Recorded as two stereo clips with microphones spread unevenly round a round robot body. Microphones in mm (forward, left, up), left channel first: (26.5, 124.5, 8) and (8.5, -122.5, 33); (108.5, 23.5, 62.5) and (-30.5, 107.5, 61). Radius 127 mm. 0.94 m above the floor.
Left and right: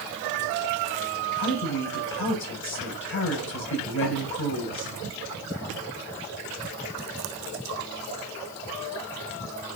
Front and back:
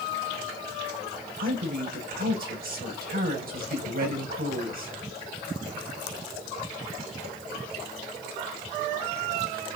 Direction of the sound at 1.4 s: 125° left.